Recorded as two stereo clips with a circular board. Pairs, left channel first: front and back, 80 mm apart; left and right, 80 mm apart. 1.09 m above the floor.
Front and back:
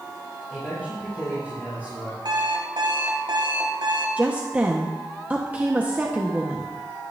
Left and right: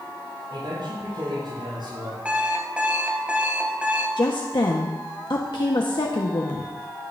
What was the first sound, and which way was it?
A man speaking, 70° right.